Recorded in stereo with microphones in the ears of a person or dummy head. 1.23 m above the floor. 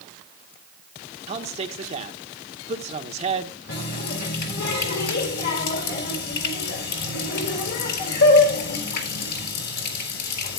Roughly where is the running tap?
Left.